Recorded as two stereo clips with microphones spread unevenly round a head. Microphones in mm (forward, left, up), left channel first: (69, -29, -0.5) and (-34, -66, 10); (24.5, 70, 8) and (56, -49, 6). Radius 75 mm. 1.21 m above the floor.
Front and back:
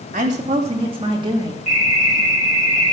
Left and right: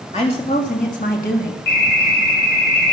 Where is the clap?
No clap in this recording.